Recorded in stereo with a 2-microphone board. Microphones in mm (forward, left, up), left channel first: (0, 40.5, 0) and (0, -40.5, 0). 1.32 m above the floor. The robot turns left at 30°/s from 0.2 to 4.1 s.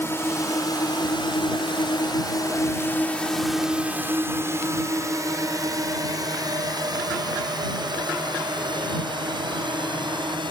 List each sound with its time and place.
0.0 s a drone: 30° left (ahead or behind); by 10.5 s 70° right (ahead or behind)